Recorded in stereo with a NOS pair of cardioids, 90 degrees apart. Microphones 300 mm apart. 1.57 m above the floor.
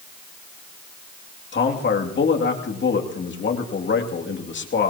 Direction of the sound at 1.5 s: 40° left.